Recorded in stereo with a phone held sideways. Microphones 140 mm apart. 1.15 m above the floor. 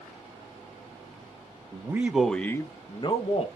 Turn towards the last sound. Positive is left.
turn(degrees=45)  # may be behind; listen again after turning